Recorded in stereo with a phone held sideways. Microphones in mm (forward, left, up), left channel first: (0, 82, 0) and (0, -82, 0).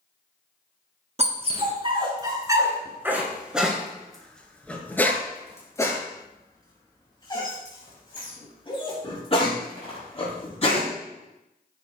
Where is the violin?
No violin in this recording.